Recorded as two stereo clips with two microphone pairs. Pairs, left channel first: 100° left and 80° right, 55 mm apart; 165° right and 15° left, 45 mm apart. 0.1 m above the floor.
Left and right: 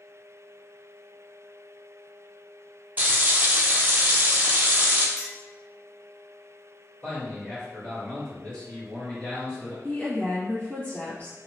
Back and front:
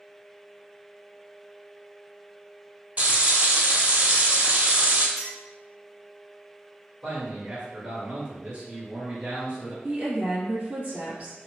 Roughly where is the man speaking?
Ahead left.